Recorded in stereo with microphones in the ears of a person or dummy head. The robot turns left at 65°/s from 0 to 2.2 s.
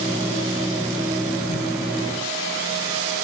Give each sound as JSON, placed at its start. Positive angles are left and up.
{"t": 1.5, "sound": "a whoosh", "side_deg": 30, "distance_m": 1.0}